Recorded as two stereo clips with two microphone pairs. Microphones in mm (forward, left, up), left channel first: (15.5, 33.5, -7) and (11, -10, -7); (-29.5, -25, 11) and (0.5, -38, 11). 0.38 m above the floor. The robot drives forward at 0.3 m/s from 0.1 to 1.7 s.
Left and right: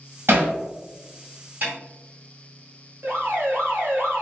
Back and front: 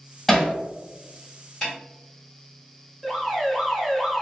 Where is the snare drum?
125° right, 2.0 m; by 1.8 s 130° right, 2.0 m.